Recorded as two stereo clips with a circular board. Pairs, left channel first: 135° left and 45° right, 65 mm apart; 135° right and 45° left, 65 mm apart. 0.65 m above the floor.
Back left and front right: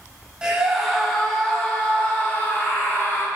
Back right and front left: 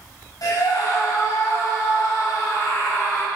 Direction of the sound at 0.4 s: 120° right.